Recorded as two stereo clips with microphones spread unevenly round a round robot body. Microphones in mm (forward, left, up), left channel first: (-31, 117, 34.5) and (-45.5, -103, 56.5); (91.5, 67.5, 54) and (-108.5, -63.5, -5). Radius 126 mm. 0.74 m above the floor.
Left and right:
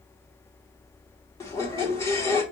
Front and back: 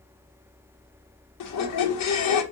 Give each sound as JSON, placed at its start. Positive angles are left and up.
{"t": 1.4, "sound": "a squeak", "azimuth_deg": 15, "distance_m": 0.8}